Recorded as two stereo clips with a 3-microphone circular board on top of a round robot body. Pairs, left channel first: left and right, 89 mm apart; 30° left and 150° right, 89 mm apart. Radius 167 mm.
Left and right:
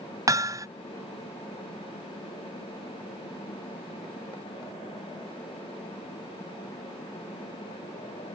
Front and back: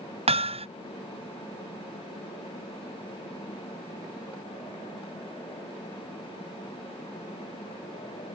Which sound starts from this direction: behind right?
Hammering, at 0.3 s.